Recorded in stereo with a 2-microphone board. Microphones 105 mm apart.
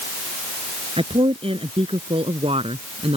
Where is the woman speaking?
65° right (ahead or behind); by 3.2 s 70° right (ahead or behind).